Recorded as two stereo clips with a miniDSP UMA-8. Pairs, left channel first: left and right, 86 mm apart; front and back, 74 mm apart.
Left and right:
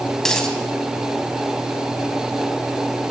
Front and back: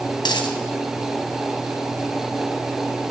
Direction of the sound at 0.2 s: 5° left.